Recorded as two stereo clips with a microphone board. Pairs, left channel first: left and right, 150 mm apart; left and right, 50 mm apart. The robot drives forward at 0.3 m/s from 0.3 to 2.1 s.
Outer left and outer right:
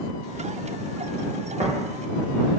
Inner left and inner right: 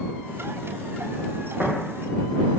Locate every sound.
1.6 s tapping: 45° right (ahead or behind), 0.8 m; by 1.7 s 50° right (ahead or behind), 0.7 m